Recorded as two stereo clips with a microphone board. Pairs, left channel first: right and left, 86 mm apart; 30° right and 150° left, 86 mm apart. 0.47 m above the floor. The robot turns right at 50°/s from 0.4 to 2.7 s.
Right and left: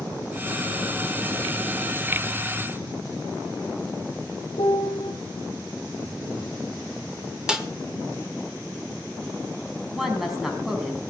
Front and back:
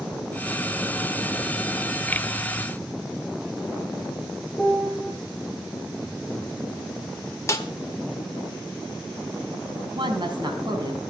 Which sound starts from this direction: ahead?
A snare drum, at 7.5 s.